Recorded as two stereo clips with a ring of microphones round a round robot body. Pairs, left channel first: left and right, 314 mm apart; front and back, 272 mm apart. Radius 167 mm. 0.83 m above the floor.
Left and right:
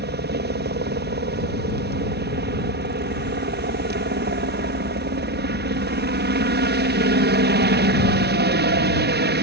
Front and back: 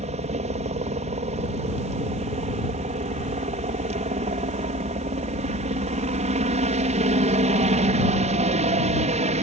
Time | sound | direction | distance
0.0 | a helicopter | 125° right | ?